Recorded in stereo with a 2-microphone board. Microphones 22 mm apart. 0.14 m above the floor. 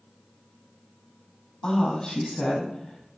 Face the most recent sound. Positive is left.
turn(degrees=40)  # may be behind; listen again after turning